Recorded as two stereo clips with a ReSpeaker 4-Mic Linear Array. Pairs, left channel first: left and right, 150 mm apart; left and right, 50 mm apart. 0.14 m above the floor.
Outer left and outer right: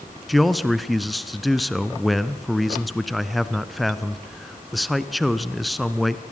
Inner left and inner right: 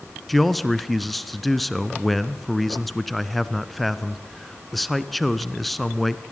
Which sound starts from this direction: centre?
A man speaking, at 0.3 s.